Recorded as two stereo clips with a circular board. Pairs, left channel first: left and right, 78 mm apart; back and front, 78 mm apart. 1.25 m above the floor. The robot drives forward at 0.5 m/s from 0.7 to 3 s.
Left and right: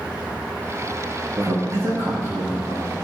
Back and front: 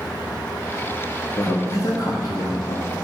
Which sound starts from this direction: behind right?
A man speaking, at 1.4 s.